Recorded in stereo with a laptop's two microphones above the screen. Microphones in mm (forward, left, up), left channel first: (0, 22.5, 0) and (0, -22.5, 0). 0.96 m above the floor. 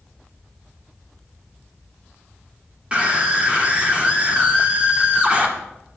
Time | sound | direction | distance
2.9 | a scream | 25° right (ahead or behind) | 2 m